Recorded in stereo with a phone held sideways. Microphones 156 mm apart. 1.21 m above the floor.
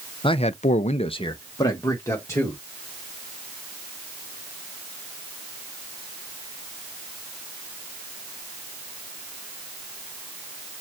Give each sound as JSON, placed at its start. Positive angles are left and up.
{"t": 0.2, "sound": "a man speaking", "side_deg": 35, "distance_m": 0.6}